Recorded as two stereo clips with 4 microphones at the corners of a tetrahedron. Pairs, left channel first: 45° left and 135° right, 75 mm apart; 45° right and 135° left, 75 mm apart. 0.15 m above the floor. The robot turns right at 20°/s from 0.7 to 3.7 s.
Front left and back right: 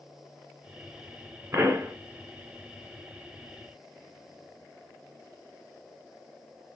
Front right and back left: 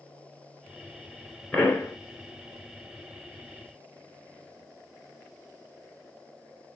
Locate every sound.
1.5 s a pop: 120° right, 2 m; by 1.9 s 115° right, 2 m